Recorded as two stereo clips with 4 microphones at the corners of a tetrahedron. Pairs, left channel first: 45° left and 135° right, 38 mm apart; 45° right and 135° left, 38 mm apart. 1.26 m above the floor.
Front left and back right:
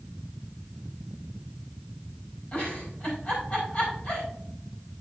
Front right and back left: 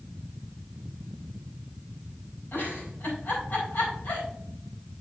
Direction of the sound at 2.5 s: 5° right.